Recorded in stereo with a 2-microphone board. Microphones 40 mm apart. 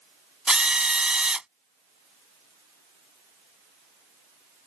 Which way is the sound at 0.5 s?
25° right (ahead or behind).